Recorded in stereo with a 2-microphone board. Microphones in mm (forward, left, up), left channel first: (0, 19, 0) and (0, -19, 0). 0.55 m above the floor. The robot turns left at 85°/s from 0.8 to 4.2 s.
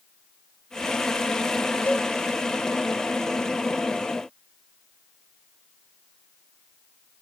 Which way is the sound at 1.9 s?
55° left (ahead or behind).